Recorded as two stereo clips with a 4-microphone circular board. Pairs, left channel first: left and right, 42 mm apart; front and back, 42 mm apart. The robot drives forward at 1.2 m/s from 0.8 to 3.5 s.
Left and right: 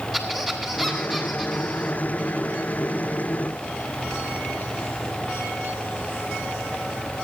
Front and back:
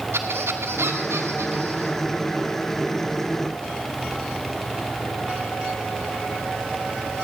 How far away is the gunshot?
I don't hear a gunshot.